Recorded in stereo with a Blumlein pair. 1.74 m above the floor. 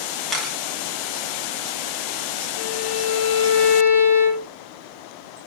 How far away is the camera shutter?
About 4.5 m.